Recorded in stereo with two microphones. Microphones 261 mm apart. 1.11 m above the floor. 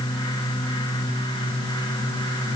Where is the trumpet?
No trumpet in this recording.